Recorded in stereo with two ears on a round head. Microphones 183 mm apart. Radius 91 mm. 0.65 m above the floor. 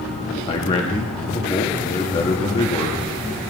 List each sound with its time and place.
0.5 s a man speaking: 30° left (ahead or behind), 0.8 m